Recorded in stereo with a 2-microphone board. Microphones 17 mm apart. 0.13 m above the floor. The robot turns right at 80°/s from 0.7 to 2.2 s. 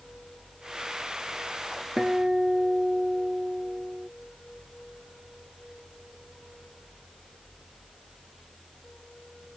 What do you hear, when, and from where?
2.0 s a guitar: 30° right (ahead or behind); by 4.1 s 45° right (ahead or behind)